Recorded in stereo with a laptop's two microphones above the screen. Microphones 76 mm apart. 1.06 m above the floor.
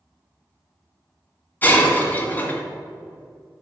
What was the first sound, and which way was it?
Breaking glass, 25° left (ahead or behind).